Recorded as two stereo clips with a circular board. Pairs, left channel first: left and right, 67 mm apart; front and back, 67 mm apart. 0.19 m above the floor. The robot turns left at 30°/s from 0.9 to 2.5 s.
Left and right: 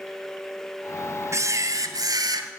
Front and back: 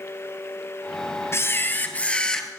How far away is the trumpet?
No trumpet in this recording.